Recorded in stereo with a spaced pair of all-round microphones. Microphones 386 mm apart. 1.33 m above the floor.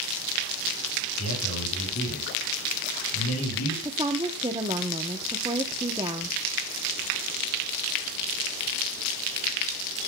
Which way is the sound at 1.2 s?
40° left (ahead or behind).